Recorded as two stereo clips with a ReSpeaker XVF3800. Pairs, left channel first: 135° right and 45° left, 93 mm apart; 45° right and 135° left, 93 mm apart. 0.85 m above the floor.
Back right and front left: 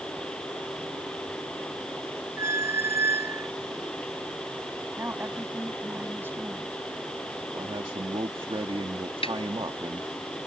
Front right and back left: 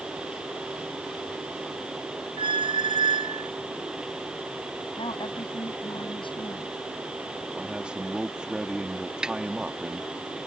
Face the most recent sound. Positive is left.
turn(degrees=-145)